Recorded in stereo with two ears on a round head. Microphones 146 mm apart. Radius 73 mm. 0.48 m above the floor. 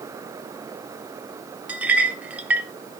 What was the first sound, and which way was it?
A clink, 10° right (ahead or behind).